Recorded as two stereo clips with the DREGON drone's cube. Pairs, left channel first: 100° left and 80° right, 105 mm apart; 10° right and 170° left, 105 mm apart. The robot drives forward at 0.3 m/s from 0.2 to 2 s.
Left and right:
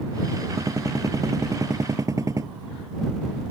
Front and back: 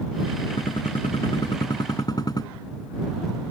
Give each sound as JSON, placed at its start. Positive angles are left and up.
{"t": 0.6, "sound": "a gunshot", "azimuth_deg": -25}